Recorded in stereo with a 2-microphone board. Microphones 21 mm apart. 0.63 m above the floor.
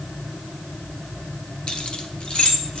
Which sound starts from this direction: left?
Keys jangling, at 1.7 s.